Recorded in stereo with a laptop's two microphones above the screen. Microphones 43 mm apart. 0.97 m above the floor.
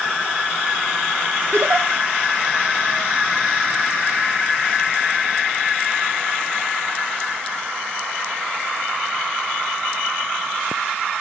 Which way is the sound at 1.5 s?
80° right.